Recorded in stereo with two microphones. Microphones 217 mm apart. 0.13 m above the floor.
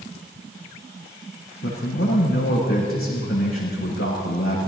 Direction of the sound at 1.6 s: 75° left (ahead or behind).